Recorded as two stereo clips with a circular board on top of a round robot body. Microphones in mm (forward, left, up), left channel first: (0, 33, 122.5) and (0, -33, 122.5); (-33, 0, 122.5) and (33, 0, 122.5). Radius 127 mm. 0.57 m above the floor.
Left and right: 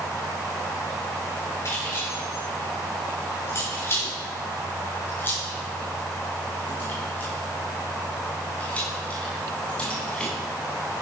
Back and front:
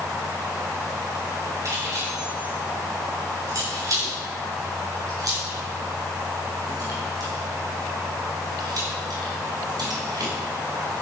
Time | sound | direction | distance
1.6 | keys jangling | 40° left | 7.5 m